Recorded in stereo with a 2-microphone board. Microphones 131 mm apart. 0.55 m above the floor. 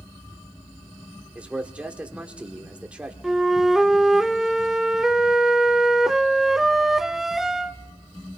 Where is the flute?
Centre (ahead or behind), 0.5 m.